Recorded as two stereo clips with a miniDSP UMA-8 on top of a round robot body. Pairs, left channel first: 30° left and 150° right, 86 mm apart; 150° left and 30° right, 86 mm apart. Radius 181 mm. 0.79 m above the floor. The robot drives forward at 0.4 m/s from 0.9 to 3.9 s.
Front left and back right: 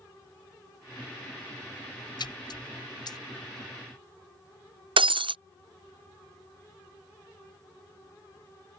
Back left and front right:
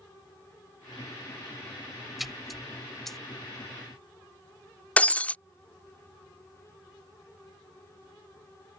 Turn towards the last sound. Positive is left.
turn(degrees=-135)